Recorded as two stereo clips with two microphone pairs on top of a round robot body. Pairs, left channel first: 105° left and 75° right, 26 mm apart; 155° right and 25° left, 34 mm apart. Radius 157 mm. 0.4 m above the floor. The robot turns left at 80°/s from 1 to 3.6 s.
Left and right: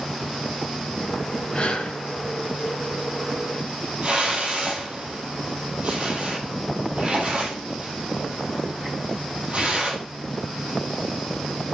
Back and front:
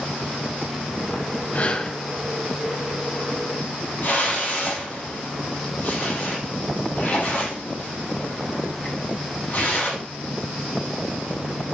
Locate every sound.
1.5 s breathing: 160° left, 0.7 m; by 2.0 s 125° left, 0.7 m
4.0 s a whoosh: 120° right, 4 m